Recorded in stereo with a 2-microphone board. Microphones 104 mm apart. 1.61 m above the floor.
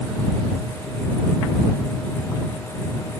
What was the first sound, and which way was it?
Only background noise.